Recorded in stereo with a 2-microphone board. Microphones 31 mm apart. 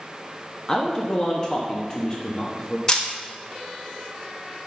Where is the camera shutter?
20° left (ahead or behind), 1.2 m.